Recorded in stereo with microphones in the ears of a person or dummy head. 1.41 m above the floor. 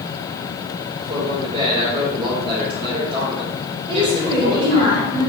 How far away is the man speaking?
About 4 m.